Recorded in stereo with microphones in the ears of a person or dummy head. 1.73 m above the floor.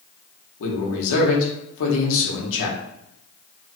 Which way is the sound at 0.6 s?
70° left (ahead or behind).